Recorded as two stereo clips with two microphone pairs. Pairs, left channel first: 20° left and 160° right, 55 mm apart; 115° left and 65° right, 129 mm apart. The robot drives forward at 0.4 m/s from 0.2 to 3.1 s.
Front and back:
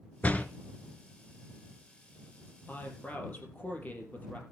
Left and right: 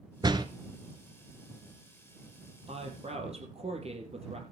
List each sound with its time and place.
0.2 s a door slam: 30° right, 1.0 m; by 0.5 s 35° right, 1.0 m
2.7 s a woman speaking: 35° right, 4 m